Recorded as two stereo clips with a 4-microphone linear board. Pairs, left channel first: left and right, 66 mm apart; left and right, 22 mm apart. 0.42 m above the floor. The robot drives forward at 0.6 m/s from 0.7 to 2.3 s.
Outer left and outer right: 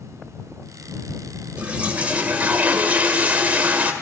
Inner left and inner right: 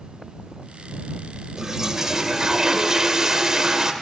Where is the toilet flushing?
20° right (ahead or behind), 2 m; by 3.9 s 25° right (ahead or behind), 1.8 m.